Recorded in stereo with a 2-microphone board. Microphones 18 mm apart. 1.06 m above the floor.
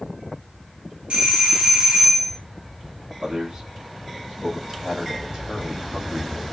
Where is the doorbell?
55° right (ahead or behind), 1.1 m.